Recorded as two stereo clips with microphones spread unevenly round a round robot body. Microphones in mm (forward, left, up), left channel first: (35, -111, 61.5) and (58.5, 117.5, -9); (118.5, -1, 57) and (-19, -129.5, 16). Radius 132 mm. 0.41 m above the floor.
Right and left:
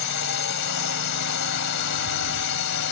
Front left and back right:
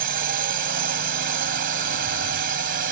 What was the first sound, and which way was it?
A drone, 120° right.